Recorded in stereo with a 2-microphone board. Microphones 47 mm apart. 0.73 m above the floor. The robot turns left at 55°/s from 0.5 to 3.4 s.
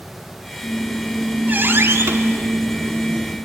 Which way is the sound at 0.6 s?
Straight ahead.